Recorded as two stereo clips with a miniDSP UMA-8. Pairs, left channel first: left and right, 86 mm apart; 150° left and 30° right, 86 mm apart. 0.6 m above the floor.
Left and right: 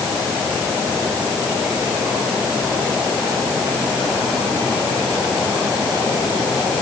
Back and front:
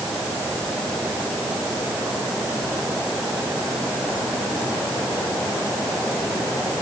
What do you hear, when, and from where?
Only background noise.